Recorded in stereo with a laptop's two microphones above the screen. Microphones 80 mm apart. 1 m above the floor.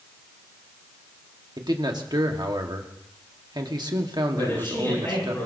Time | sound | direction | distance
1.6 | a man speaking | 65° right (ahead or behind) | 1.6 m
4.3 | a man speaking | 30° left (ahead or behind) | 9.5 m